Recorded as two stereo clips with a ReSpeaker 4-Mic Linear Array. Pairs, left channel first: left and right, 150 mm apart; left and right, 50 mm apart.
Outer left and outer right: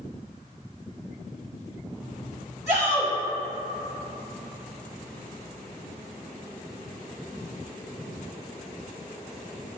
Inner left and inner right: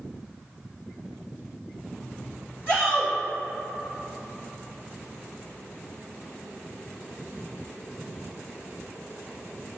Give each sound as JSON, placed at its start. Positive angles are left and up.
{"t": 2.7, "sound": "a shout", "side_deg": 50, "distance_m": 1.7}